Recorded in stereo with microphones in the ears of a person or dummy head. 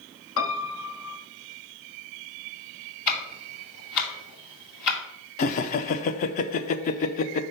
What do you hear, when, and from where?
0.4 s a piano: 75° left (ahead or behind), 0.9 m
3.1 s ticking: 60° left (ahead or behind), 2.5 m
5.4 s laughter: 40° left (ahead or behind), 0.6 m